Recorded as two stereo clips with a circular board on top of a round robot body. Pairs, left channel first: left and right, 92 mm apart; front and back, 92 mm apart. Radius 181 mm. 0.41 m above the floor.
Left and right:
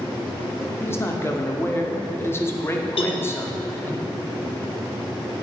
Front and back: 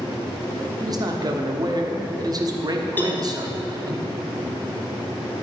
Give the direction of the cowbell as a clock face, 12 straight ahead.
10 o'clock.